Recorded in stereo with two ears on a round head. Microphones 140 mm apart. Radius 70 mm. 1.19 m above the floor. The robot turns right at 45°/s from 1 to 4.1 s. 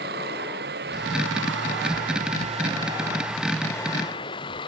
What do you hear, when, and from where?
0.0 s running water: 110° right; by 4.7 s 30° left